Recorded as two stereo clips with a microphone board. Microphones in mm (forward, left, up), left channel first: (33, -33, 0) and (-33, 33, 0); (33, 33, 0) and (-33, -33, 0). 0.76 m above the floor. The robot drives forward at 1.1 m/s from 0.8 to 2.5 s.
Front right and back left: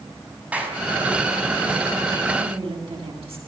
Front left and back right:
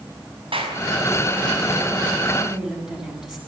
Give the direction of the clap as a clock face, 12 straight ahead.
5 o'clock.